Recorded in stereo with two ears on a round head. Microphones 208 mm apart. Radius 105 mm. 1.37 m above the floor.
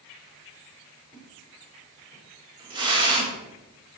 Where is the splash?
20° right (ahead or behind), 6.5 m.